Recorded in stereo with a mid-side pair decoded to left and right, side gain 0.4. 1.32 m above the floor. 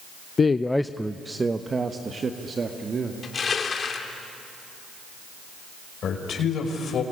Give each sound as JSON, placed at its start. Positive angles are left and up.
{"t": 0.4, "sound": "a man speaking", "azimuth_deg": 45, "distance_m": 0.6}
{"t": 3.2, "sound": "crushing", "azimuth_deg": 50, "distance_m": 2.5}
{"t": 6.0, "sound": "a man speaking", "azimuth_deg": 65, "distance_m": 5.0}